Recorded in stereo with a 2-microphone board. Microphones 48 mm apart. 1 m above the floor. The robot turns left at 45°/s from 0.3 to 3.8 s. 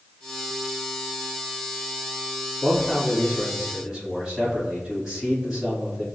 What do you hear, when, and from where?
2.6 s a man speaking: 35° left, 1.8 m; by 6.0 s 15° right, 1.8 m